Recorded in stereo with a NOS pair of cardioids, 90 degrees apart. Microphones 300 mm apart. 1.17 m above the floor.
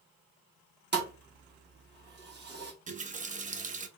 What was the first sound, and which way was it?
A thud, 35° right.